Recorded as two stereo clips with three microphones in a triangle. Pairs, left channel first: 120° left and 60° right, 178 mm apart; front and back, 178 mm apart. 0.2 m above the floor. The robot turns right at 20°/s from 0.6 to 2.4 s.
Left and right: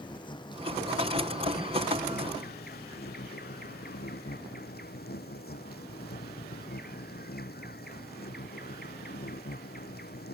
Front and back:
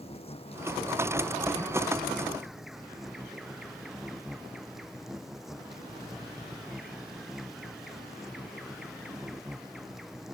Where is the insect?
55° left; by 10.3 s 90° left.